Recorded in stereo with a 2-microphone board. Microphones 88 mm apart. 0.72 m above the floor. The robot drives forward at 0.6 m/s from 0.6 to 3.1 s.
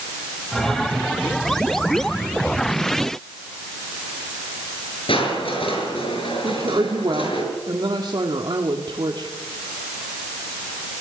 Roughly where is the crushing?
Left.